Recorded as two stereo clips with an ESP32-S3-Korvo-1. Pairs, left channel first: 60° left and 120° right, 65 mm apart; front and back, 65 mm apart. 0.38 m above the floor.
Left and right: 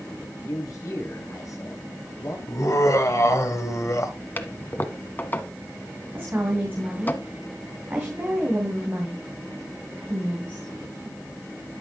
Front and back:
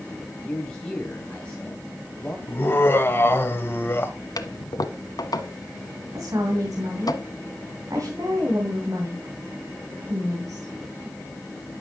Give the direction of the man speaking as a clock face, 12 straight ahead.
10 o'clock.